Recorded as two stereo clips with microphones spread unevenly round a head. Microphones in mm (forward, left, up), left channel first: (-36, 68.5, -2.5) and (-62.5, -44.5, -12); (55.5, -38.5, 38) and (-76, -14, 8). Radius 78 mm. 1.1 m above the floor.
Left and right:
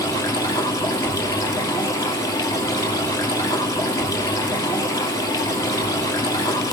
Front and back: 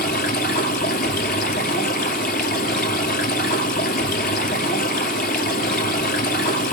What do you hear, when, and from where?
0.0 s running water: 15° left, 2.5 m